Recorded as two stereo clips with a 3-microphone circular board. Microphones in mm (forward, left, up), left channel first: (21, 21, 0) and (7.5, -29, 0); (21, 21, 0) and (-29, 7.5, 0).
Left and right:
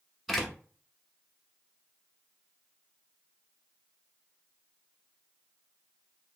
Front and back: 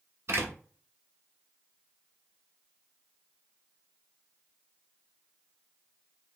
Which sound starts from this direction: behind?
A door slam, at 0.3 s.